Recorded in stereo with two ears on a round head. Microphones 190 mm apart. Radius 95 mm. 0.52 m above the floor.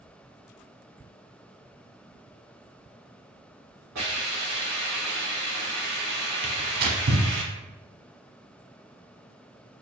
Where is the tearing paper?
50° right (ahead or behind), 0.6 m.